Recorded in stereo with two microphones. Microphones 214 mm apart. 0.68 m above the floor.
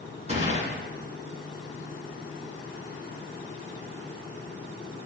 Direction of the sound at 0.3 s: 35° right (ahead or behind).